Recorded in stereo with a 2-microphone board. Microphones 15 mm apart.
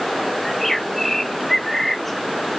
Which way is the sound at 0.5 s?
20° left (ahead or behind).